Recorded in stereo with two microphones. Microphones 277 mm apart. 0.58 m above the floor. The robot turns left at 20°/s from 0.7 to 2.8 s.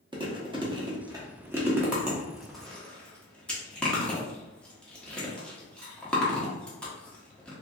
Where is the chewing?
15° right (ahead or behind), 0.8 m; by 7.5 s 5° left (ahead or behind), 0.8 m.